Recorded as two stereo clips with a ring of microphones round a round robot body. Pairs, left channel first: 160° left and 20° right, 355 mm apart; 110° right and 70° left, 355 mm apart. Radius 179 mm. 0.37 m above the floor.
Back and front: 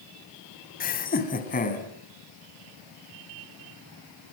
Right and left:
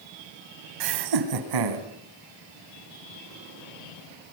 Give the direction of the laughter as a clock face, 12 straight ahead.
9 o'clock.